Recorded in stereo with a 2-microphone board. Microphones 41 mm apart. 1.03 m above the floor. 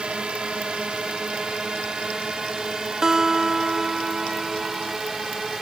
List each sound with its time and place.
0.0 s a drone: 20° right (ahead or behind); by 5.6 s 5° right (ahead or behind)
3.0 s a guitar: 10° right (ahead or behind)